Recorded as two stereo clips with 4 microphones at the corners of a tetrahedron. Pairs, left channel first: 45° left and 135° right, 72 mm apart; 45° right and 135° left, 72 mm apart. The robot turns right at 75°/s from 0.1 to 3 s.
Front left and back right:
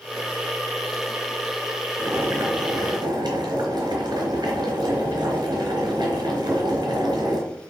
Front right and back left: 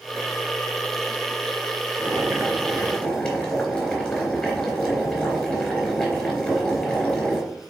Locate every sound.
2.0 s boiling: 165° left, 3.5 m; by 7.4 s 120° right, 3.5 m